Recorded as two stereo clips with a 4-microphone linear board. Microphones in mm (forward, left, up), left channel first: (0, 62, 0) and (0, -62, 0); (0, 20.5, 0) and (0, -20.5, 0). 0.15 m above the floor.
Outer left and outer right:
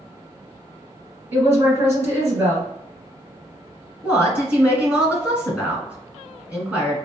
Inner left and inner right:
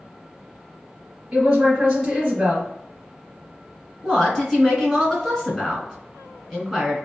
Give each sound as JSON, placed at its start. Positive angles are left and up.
{"t": 1.3, "sound": "a woman speaking", "side_deg": -20, "distance_m": 1.4}
{"t": 4.0, "sound": "a woman speaking", "side_deg": -5, "distance_m": 1.7}